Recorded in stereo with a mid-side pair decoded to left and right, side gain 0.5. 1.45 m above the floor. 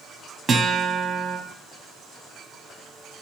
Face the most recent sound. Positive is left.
turn(degrees=-45)